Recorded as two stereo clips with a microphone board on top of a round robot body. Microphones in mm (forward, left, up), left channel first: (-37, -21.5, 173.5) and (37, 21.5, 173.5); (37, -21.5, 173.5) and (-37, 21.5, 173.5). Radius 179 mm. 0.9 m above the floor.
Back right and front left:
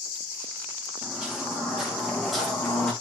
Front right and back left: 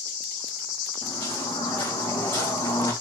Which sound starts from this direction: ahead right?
Footsteps, at 1.0 s.